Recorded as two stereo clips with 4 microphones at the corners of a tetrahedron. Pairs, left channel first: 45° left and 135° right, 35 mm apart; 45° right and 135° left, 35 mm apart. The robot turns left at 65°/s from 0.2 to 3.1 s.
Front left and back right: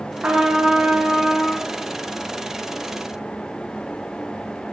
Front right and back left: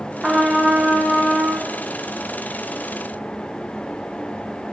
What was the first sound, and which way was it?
A trumpet, 140° right.